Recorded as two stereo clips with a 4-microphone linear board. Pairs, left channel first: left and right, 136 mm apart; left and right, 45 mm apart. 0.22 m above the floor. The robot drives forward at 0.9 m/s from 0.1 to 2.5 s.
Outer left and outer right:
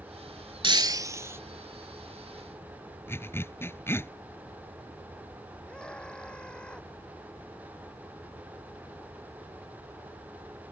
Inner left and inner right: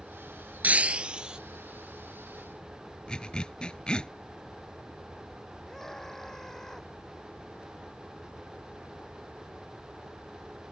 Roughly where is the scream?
Centre.